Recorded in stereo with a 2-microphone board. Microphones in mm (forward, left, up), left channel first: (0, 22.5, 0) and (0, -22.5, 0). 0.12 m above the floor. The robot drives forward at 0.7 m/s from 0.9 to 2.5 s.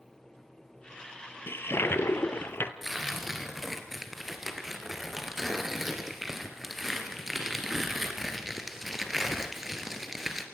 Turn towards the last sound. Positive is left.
turn(degrees=-5)  # may be behind; listen again after turning